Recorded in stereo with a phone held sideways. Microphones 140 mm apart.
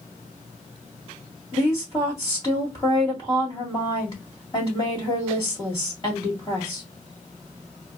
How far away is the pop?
No pop in this recording.